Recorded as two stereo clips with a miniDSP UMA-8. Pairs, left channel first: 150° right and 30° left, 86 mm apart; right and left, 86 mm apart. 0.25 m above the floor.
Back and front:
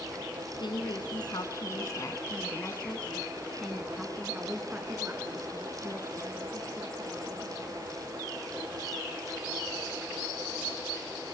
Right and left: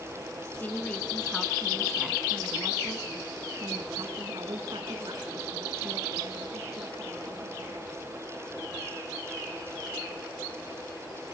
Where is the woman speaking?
155° right, 2.5 m; by 7.8 s 75° left, 5 m.